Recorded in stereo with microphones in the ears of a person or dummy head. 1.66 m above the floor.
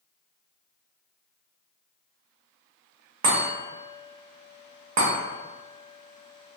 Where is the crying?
I don't hear crying.